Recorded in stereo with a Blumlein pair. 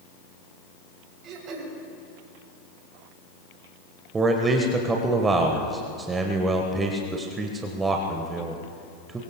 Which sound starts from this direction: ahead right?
Throat clearing, at 1.2 s.